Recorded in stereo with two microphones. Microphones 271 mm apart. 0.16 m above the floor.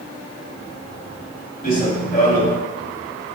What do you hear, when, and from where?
1.6 s running footsteps: 35° left (ahead or behind), 3 m